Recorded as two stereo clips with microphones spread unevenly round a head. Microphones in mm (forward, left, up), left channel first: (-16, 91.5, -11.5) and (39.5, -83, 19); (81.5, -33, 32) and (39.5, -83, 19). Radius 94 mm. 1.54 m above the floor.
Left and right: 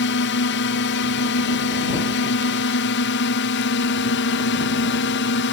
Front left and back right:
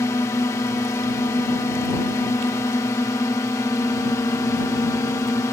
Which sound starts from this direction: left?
A drone, at 0.0 s.